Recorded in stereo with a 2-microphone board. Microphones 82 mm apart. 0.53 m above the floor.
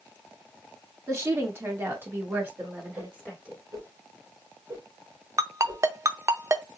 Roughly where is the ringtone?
Right.